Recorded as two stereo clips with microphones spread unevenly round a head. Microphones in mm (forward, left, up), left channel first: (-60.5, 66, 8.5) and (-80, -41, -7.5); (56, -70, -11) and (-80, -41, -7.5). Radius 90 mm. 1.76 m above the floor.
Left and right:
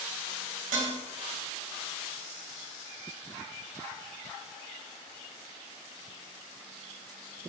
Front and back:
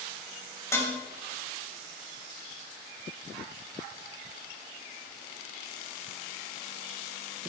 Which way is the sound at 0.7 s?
80° right.